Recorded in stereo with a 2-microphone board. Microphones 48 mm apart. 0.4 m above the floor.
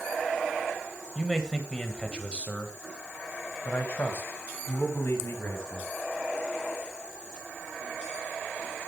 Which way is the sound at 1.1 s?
5° left (ahead or behind).